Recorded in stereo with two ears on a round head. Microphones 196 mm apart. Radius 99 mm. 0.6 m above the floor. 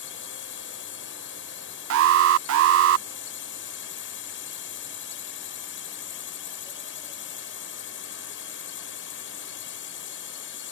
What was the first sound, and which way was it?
A drone, 60° left (ahead or behind).